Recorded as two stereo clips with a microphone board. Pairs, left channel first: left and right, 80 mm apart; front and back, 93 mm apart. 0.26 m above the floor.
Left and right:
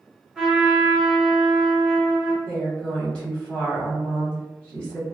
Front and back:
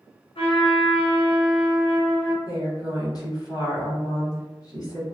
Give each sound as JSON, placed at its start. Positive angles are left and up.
{"t": 0.3, "sound": "a trumpet", "azimuth_deg": -5, "distance_m": 1.9}
{"t": 2.5, "sound": "a woman speaking", "azimuth_deg": 15, "distance_m": 1.5}